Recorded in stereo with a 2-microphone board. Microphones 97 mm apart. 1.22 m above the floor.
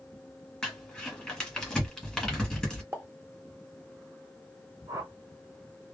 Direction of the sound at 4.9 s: 40° right (ahead or behind).